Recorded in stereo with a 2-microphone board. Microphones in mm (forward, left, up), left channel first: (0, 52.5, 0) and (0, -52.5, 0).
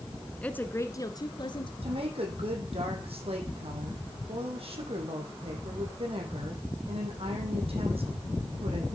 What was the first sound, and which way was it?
A woman speaking, 10° left (ahead or behind).